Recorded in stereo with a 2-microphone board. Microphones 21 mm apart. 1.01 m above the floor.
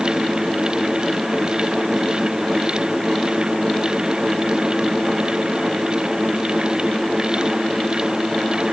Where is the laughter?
No laughter in this recording.